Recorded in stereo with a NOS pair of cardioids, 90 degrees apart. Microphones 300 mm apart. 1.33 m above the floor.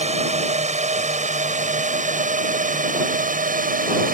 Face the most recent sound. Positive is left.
turn(degrees=-30)